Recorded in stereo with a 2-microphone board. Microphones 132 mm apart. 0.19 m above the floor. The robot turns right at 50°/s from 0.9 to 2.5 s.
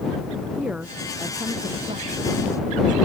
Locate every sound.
0.6 s a woman speaking: 175° right; by 3.1 s 95° right